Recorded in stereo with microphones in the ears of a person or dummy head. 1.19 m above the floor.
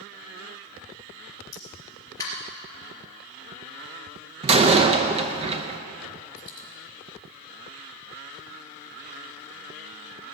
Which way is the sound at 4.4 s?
30° right (ahead or behind).